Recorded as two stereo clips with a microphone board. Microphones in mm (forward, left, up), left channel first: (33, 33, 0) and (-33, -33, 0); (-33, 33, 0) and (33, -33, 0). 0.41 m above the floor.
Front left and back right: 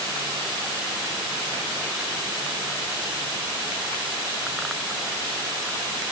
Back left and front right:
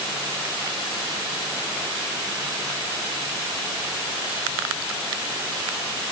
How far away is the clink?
I don't hear a clink.